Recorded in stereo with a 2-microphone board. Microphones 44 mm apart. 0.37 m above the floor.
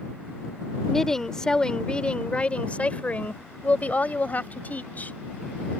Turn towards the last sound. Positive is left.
turn(degrees=40)  # may be behind; listen again after turning